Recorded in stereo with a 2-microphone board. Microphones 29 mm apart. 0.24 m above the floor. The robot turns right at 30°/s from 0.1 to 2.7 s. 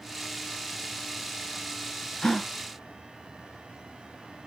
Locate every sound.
2.2 s a gasp: 30° left (ahead or behind), 0.9 m; by 2.5 s 25° left (ahead or behind), 0.9 m